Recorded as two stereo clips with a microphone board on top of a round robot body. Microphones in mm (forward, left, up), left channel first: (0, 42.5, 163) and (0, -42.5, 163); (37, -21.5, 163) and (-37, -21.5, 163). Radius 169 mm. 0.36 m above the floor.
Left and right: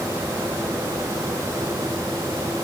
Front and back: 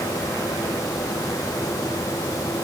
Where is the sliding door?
I don't hear a sliding door.